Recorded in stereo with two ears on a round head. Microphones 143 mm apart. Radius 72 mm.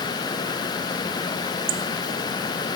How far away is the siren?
I don't hear a siren.